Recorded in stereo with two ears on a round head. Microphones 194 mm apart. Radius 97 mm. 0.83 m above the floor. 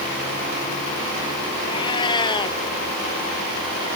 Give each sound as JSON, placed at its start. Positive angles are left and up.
{"t": 1.7, "sound": "a cat meowing", "side_deg": 20}